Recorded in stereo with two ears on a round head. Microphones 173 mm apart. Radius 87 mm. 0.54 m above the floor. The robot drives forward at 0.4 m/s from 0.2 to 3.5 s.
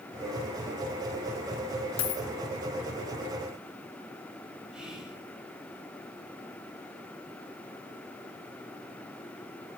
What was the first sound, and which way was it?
A dropped coin, 80° left.